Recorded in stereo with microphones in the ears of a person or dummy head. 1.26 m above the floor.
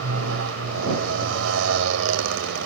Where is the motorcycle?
75° right (ahead or behind).